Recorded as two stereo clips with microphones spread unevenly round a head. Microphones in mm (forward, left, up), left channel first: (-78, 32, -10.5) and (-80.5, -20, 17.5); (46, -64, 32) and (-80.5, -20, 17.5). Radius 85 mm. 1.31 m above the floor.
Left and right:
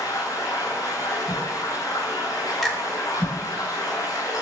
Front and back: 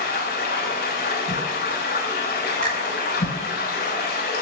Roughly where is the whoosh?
Ahead.